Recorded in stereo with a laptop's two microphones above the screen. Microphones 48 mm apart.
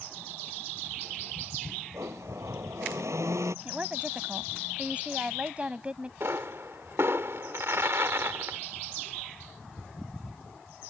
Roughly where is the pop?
Right.